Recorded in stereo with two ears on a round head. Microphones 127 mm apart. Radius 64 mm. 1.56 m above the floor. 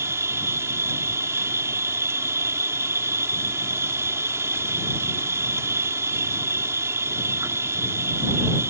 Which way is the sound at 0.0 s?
20° right (ahead or behind).